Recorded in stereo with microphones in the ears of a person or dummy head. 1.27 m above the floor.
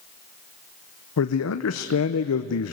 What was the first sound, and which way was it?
A man speaking, 75° left (ahead or behind).